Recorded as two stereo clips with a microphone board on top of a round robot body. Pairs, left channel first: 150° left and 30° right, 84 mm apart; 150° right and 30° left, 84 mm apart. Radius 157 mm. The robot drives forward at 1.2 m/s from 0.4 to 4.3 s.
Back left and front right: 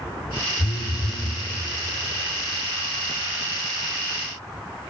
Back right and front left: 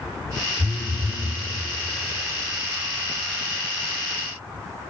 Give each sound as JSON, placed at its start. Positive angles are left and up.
{"t": 0.6, "sound": "a phone buzzing", "azimuth_deg": 120, "distance_m": 0.7}